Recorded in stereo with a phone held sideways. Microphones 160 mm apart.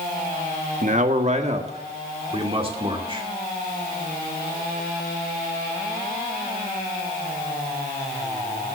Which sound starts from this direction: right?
A man speaking, at 0.8 s.